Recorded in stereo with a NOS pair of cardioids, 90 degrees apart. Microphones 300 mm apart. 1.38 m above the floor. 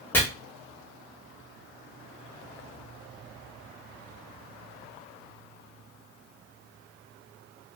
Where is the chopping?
5° left, 1.0 m.